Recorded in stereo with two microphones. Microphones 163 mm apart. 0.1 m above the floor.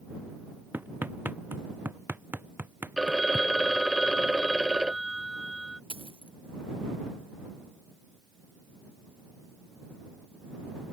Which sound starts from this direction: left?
A dropped coin, at 5.9 s.